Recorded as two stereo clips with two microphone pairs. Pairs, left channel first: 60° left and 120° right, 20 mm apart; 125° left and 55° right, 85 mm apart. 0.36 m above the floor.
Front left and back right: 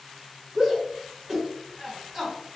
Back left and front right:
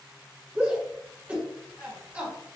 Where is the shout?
75° right, 1.4 m.